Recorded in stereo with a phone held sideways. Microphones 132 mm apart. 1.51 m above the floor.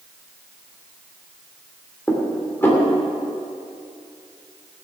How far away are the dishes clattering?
About 2.5 m.